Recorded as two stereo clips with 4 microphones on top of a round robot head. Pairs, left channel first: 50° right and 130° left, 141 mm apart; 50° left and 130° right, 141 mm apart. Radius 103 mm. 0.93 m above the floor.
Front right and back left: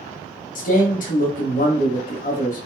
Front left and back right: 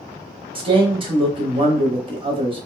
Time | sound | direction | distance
0.6 | a man speaking | 75° right | 0.8 m